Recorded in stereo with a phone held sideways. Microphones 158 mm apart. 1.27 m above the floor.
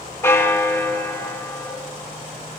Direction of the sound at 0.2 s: 15° left (ahead or behind).